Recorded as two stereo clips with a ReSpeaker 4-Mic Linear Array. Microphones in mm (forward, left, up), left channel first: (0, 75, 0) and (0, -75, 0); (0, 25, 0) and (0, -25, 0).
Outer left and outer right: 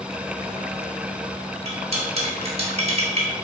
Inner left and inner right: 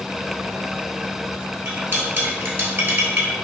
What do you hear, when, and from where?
1.6 s cutlery clinking: 45° right (ahead or behind), 1.0 m